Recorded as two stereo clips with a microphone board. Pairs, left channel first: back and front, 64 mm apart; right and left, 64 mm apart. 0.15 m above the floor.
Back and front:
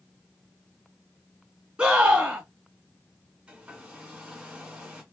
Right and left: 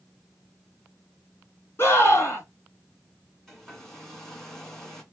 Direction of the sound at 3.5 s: 25° right.